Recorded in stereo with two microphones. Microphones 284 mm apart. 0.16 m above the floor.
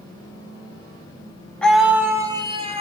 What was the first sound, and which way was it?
A scream, 5° left (ahead or behind).